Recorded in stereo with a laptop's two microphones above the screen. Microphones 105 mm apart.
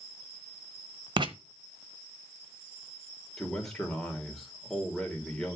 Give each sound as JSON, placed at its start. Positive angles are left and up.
{"t": 1.2, "sound": "writing", "side_deg": -45, "distance_m": 1.1}
{"t": 3.4, "sound": "a man speaking", "side_deg": 5, "distance_m": 3.0}